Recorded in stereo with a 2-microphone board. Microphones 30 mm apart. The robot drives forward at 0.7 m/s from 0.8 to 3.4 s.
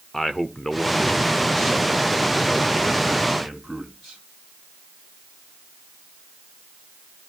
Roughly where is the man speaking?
Centre.